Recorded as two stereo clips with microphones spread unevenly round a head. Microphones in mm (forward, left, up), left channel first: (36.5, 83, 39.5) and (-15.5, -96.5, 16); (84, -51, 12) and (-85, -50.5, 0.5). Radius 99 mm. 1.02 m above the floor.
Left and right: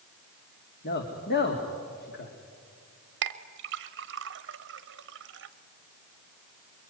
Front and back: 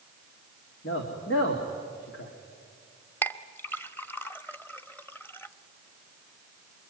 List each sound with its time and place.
0.8 s a man speaking: 35° left, 2 m
3.2 s a clink: 80° right, 0.9 m